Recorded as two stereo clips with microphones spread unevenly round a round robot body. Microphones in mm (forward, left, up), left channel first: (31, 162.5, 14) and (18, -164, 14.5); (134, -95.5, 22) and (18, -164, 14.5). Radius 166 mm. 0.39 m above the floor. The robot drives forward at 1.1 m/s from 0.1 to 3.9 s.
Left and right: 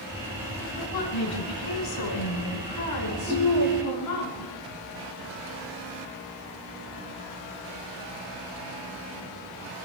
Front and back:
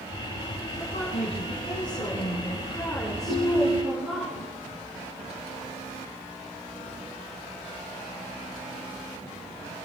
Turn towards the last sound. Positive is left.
turn(degrees=170)